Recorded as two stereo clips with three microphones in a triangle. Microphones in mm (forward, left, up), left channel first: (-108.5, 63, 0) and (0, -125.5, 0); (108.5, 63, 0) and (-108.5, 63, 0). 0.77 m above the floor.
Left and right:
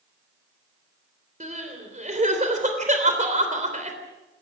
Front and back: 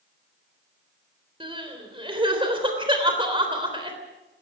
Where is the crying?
115° right, 3.5 m.